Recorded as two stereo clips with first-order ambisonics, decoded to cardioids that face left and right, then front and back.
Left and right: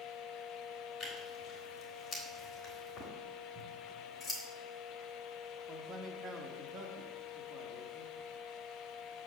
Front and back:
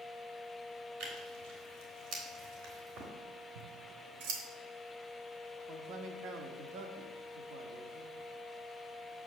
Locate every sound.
1.0 s tearing paper: 165° left, 3 m
3.5 s scissors: 175° left, 2.0 m
5.7 s a man speaking: 150° right, 0.8 m